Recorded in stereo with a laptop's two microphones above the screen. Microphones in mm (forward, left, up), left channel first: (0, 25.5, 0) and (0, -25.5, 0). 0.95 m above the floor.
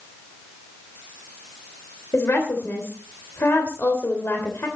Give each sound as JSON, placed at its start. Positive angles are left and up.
{"t": 2.1, "sound": "a woman speaking", "side_deg": 55, "distance_m": 3.0}